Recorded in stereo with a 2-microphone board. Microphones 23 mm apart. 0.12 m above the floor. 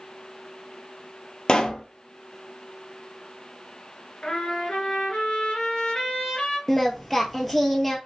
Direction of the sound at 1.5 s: 45° left (ahead or behind).